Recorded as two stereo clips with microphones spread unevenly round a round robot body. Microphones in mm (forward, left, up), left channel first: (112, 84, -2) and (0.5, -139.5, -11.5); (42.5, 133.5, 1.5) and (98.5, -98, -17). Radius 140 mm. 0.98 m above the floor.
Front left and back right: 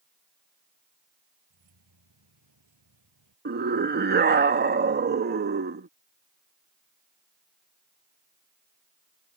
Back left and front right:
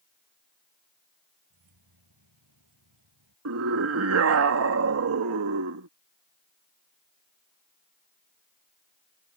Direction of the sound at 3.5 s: 70° right.